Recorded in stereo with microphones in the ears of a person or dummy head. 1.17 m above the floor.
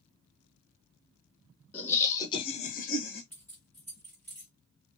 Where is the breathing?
No breathing in this recording.